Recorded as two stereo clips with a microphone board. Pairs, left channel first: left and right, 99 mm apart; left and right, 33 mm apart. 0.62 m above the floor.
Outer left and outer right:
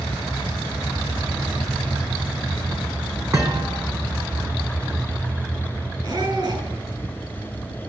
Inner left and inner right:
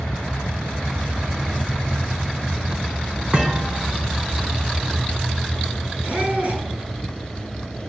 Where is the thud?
35° right (ahead or behind), 4 m.